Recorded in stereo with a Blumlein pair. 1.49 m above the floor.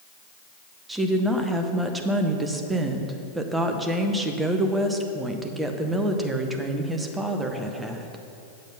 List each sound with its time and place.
0.9 s a woman speaking: 10° right, 0.9 m